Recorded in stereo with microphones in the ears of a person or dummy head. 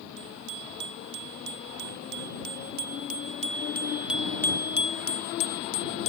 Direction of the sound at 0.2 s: 70° right (ahead or behind).